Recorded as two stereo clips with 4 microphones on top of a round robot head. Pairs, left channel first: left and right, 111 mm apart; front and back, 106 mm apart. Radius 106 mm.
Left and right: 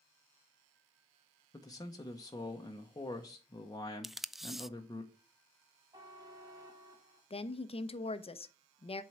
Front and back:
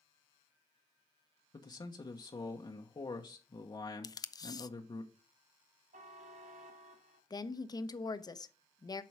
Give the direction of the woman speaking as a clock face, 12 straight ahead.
10 o'clock.